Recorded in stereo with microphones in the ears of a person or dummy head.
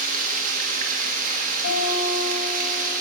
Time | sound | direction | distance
0.0 | running water | 40° right (ahead or behind) | 1.8 m
1.6 | a guitar | 80° left | 5.5 m